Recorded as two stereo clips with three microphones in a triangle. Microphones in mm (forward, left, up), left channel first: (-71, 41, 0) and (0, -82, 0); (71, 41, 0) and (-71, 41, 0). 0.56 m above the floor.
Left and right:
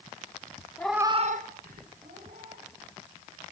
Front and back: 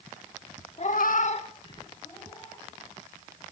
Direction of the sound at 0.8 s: 45° left.